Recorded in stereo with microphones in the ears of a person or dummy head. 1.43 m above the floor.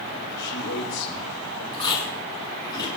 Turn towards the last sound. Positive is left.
turn(degrees=25)  # may be behind; listen again after turning